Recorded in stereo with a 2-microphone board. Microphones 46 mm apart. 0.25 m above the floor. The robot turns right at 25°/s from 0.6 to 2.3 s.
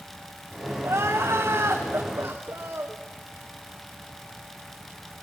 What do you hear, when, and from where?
0.8 s crying: 100° right, 3 m; by 3.0 s 65° right, 3 m